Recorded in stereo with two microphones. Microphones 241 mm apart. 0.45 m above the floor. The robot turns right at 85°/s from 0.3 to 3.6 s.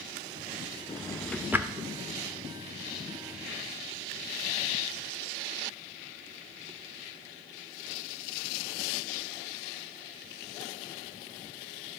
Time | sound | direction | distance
0.9 | a drawer | 25° left (ahead or behind) | 0.6 m